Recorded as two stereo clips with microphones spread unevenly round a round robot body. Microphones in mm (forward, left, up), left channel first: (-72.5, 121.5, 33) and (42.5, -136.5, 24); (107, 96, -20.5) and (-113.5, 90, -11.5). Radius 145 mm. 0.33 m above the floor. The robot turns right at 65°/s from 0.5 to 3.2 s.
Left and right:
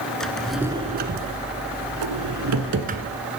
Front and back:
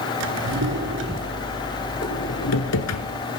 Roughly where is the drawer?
Behind.